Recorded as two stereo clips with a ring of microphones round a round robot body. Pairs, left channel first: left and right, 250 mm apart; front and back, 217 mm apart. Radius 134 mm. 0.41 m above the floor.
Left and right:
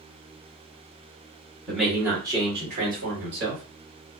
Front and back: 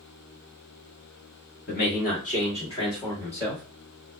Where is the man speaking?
5° left, 1.7 m; by 3.6 s 85° right, 1.9 m.